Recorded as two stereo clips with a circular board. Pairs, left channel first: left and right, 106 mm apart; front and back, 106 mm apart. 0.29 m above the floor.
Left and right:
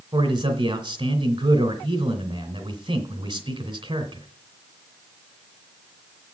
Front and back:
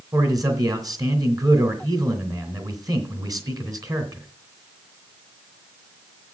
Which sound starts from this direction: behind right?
A man speaking, at 0.1 s.